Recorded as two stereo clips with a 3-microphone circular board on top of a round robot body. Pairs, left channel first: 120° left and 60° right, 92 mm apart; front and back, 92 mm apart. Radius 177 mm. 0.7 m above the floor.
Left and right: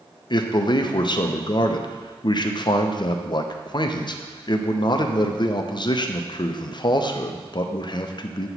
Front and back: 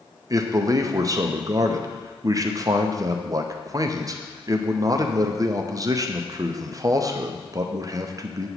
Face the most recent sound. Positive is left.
turn(degrees=140)